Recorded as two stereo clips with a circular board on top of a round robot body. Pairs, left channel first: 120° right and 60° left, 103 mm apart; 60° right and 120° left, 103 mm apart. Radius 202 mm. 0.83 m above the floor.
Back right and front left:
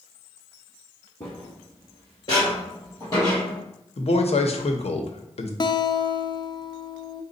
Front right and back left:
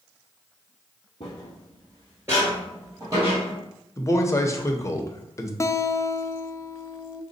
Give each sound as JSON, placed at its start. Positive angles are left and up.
{"t": 1.2, "sound": "footsteps", "azimuth_deg": -65, "distance_m": 0.8}
{"t": 4.0, "sound": "a man speaking", "azimuth_deg": -120, "distance_m": 0.8}
{"t": 5.6, "sound": "a guitar", "azimuth_deg": -110, "distance_m": 0.5}